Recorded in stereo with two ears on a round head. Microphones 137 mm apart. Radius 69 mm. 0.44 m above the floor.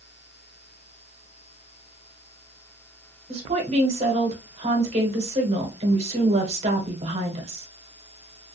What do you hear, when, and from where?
3.3 s a woman speaking: 45° right (ahead or behind), 1.3 m